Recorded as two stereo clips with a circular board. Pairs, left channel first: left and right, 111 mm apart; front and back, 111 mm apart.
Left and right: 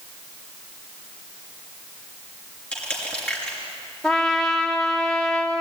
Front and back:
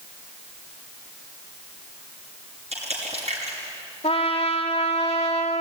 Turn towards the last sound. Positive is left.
turn(degrees=5)